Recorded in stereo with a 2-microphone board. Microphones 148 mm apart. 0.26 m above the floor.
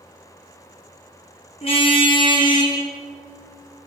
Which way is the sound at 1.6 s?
40° left (ahead or behind).